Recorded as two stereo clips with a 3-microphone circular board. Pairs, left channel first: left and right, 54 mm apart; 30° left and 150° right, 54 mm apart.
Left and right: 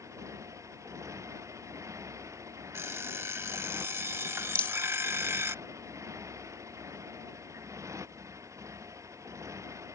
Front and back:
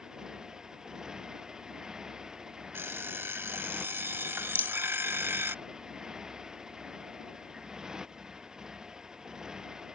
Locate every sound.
0.0 s a motorcycle: 70° right
2.7 s an alarm clock: 115° right
4.5 s a rattle: 45° left